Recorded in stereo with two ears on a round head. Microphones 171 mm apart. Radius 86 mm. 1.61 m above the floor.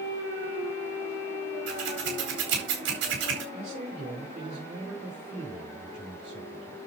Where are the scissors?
65° right (ahead or behind), 4.5 m.